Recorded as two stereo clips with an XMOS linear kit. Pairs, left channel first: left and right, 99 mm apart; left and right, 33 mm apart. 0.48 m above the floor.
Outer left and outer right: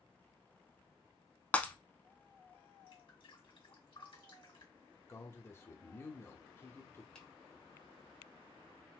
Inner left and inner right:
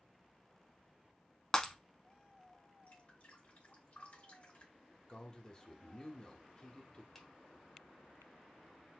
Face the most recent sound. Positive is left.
turn(degrees=10)  # may be behind; listen again after turning